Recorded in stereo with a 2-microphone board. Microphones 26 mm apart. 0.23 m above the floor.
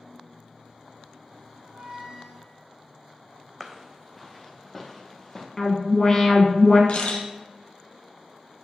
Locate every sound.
1.6 s a squeak: 35° right (ahead or behind), 1.7 m
3.6 s footsteps: 10° right (ahead or behind), 0.6 m; by 5.5 s 5° left (ahead or behind), 1.8 m
5.6 s an alarm: 25° left (ahead or behind), 1.2 m
6.9 s a camera shutter: 55° left (ahead or behind), 1.2 m